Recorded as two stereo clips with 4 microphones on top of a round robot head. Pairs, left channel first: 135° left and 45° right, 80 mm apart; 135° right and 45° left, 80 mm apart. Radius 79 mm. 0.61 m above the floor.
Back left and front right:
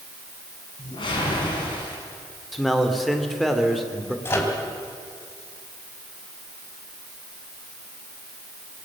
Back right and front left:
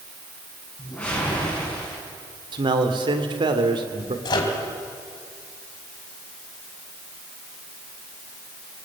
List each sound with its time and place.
0.8 s a whoosh: 150° left, 7 m
2.5 s a man speaking: 45° left, 2.5 m
4.2 s a microwave: 165° right, 3.5 m